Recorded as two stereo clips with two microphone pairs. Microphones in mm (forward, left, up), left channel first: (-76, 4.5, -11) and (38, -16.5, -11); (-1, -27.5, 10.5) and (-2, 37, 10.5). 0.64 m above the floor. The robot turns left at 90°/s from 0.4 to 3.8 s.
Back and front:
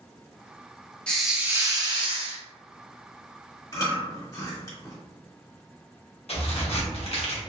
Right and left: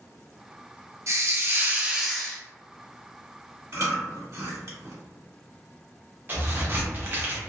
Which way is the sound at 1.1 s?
95° left.